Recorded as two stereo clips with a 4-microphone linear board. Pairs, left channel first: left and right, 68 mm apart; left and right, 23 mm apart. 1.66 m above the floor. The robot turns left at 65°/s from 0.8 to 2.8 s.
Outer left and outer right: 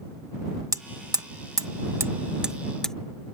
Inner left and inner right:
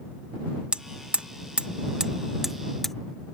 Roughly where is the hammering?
Right.